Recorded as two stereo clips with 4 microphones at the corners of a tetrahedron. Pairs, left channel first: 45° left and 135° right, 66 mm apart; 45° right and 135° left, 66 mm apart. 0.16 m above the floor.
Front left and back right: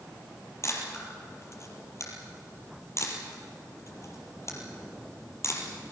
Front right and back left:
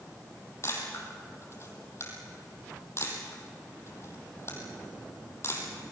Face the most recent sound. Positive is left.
turn(degrees=0)